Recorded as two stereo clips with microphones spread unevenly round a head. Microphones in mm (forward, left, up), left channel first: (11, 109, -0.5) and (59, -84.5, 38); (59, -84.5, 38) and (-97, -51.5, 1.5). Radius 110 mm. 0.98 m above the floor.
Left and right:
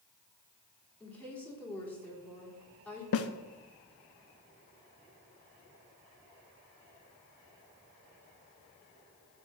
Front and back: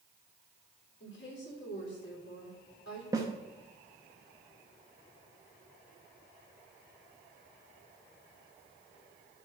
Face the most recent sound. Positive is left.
turn(degrees=95)